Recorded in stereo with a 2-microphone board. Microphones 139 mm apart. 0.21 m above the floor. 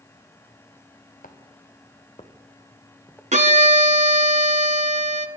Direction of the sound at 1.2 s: 80° left.